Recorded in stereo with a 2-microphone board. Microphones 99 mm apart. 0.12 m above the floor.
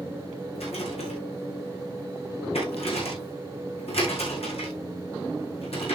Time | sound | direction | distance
0.6 | a rattle | 75° left (ahead or behind) | 6.5 m